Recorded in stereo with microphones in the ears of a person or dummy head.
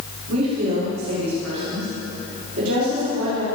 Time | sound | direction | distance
0.3 | a woman speaking | 85° right | 7 m